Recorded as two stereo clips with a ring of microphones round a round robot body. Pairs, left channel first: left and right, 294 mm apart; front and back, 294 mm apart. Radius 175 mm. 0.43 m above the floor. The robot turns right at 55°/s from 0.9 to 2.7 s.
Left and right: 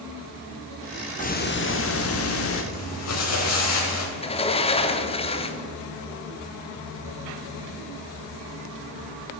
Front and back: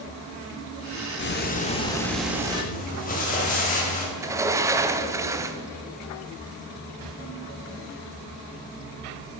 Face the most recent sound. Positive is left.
turn(degrees=120)